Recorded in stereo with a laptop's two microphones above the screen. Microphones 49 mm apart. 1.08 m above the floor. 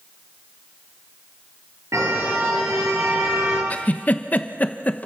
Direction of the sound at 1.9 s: 85° right.